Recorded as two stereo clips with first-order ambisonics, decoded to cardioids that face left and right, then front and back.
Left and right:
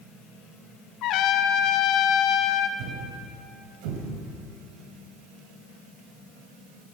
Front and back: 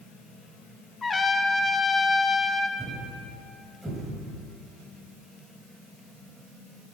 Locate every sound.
1.0 s a trumpet: 70° left, 0.6 m
2.8 s a thud: 95° right, 2 m